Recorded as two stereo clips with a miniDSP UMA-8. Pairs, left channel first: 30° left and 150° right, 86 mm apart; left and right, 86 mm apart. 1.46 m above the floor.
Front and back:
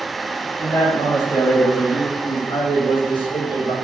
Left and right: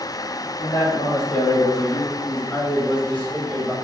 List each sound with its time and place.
0.6 s a man speaking: 80° left, 3 m; by 3.7 s straight ahead, 1.6 m